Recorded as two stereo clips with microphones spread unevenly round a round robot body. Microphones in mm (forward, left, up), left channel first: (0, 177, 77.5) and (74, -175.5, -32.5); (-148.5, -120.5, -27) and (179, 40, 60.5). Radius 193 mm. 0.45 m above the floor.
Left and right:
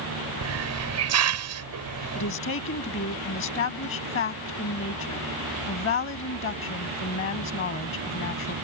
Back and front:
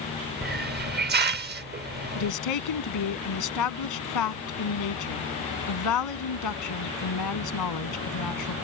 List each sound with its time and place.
0.4 s a hiss: 45° right
2.1 s a woman speaking: 165° left